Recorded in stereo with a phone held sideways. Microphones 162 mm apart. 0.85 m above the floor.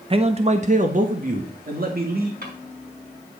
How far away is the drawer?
About 4 m.